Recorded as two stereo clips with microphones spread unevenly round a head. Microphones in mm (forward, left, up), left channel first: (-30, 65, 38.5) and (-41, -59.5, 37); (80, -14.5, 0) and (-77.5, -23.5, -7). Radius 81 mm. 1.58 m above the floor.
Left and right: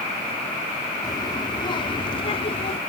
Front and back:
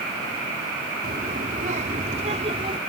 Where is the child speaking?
140° left; by 2.8 s 125° left.